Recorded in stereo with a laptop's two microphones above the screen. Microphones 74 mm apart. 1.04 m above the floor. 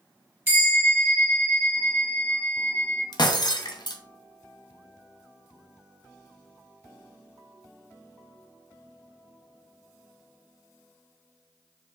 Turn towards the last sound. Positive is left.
turn(degrees=70)  # may be behind; listen again after turning